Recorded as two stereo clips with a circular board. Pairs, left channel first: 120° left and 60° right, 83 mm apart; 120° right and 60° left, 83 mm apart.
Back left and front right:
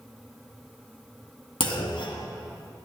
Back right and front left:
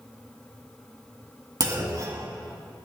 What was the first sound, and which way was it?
A clunk, 100° left.